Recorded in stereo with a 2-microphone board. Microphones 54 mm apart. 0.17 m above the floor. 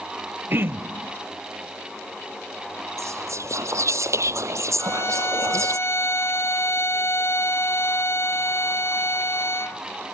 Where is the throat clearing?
50° right (ahead or behind).